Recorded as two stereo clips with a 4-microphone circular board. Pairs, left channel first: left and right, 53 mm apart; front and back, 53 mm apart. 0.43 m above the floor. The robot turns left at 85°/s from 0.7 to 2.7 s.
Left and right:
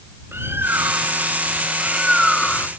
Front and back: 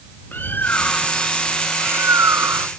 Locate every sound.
0.3 s a bird: 50° right; by 2.7 s 140° left